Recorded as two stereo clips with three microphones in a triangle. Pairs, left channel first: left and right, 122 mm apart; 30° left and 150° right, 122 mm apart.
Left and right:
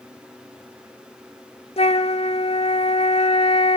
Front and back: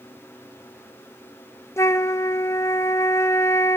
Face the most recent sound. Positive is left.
turn(degrees=90)